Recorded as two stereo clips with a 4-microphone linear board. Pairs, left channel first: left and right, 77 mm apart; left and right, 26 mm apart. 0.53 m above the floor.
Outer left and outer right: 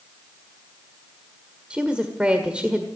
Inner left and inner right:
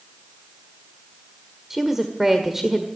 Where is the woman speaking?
15° right (ahead or behind), 1.5 m.